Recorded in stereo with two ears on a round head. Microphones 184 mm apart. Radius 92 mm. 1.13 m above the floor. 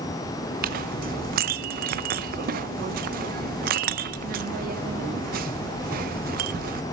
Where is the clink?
45° right (ahead or behind), 0.6 m.